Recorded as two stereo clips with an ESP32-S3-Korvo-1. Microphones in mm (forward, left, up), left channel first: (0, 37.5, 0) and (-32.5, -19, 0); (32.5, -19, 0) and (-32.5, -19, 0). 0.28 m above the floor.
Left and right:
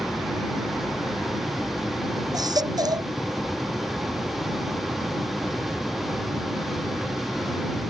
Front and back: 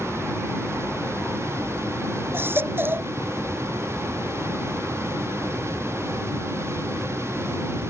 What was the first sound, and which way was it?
A baby crying, 125° right.